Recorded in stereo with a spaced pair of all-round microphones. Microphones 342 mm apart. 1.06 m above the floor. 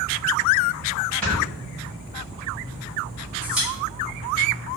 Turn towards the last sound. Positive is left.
turn(degrees=-5)  # may be behind; listen again after turning